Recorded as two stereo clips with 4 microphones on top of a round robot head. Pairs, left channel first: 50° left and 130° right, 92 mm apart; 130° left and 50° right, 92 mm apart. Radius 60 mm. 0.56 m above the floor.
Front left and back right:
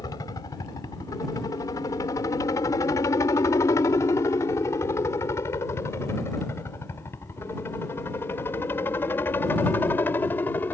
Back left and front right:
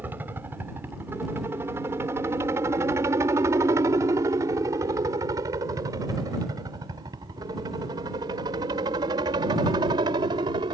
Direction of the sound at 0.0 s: 15° left.